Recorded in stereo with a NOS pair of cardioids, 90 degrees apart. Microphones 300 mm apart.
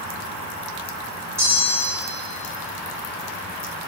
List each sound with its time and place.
1.4 s a bell: 10° right, 1.7 m